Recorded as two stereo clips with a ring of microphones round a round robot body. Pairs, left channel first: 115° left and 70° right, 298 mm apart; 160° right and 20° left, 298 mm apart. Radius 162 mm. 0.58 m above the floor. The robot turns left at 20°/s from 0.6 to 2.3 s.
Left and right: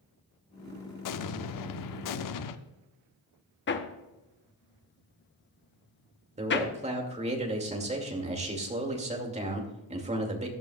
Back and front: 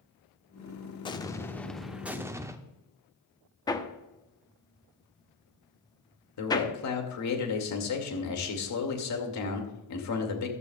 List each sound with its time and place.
1.0 s an explosion: 130° left, 0.8 m; by 2.6 s 105° left, 0.8 m
3.7 s hammering: 135° left, 1.1 m
6.4 s a man speaking: 135° right, 2.5 m